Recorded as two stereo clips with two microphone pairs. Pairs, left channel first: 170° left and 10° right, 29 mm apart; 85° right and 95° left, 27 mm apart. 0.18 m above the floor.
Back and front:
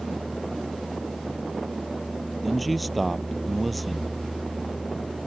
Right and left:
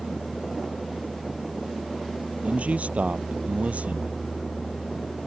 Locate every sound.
2.4 s a man speaking: 85° left